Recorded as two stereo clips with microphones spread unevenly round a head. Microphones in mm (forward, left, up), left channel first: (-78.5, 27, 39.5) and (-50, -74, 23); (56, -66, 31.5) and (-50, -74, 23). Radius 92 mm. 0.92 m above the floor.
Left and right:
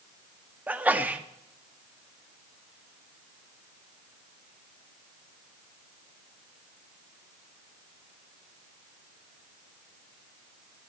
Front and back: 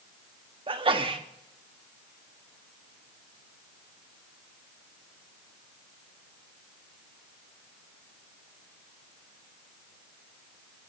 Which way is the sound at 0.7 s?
145° right.